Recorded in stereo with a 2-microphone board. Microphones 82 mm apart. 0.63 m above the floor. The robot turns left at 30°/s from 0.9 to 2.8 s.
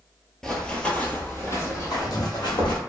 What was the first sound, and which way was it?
Running footsteps, 5° left (ahead or behind).